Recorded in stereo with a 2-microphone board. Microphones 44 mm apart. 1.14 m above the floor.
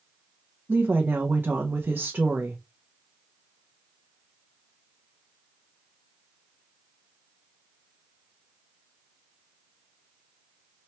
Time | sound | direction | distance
0.7 | a woman speaking | 55° right (ahead or behind) | 0.6 m